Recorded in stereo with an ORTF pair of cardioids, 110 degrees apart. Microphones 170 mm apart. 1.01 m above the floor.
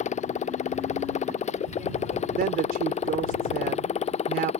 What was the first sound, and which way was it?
A motorcycle, 45° left.